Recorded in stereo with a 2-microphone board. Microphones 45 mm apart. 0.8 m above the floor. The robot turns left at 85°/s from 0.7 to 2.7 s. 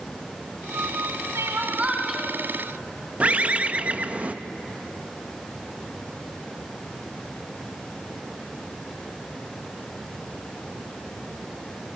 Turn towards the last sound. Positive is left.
turn(degrees=-30)  # may be behind; listen again after turning